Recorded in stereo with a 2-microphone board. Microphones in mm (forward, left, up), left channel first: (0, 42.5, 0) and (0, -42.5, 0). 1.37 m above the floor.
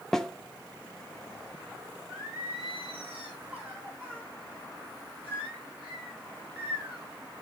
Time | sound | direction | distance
0.1 | a snare drum | 5° left (ahead or behind) | 0.7 m
2.1 | singing | 20° right (ahead or behind) | 5.5 m